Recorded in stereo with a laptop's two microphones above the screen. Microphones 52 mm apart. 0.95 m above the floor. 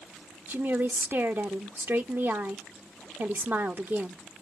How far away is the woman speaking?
About 0.9 m.